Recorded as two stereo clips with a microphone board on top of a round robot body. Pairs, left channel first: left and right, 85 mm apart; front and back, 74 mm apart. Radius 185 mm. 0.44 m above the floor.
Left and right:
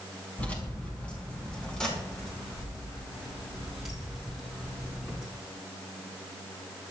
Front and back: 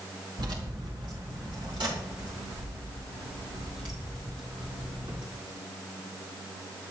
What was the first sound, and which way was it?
Keys jangling, 160° left.